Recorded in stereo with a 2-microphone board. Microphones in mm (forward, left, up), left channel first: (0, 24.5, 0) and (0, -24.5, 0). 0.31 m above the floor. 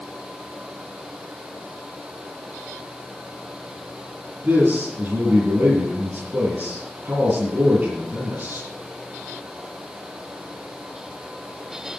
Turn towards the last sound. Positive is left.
turn(degrees=-35)  # may be behind; listen again after turning